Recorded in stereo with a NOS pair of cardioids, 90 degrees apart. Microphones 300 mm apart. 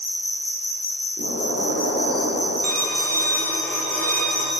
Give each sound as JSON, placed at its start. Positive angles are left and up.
{"t": 0.0, "sound": "an insect", "azimuth_deg": 20, "distance_m": 1.5}
{"t": 1.2, "sound": "an explosion", "azimuth_deg": -70, "distance_m": 2.5}
{"t": 2.6, "sound": "a violin", "azimuth_deg": 5, "distance_m": 1.2}